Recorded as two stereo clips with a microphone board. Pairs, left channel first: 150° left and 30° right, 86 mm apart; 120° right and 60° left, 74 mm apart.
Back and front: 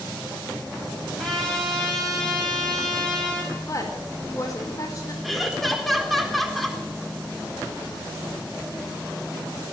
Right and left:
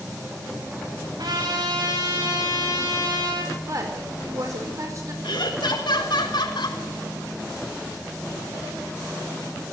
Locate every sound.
1.2 s a trumpet: 65° left, 8.5 m
3.7 s a woman speaking: 105° left, 4.5 m
5.2 s laughter: 120° right, 4 m